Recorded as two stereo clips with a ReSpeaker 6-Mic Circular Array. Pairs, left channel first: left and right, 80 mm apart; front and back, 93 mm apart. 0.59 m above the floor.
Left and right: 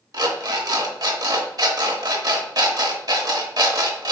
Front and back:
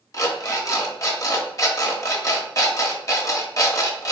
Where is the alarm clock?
50° right, 0.8 m.